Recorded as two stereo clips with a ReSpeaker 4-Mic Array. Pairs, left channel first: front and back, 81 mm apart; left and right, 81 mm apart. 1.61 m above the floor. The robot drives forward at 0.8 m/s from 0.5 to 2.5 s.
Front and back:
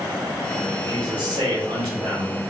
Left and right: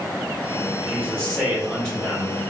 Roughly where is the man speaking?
Behind.